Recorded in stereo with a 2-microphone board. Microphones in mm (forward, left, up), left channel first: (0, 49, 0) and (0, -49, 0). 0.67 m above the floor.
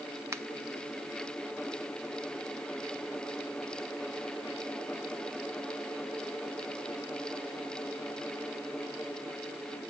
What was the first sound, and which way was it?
A finger snap, 30° right (ahead or behind).